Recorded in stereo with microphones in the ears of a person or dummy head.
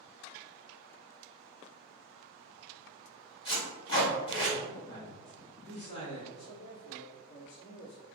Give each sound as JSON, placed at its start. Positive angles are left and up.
{"t": 3.5, "sound": "tape being pulled", "side_deg": 25, "distance_m": 1.1}
{"t": 4.9, "sound": "a man speaking", "side_deg": 55, "distance_m": 2.0}
{"t": 6.3, "sound": "a man speaking", "side_deg": 80, "distance_m": 1.9}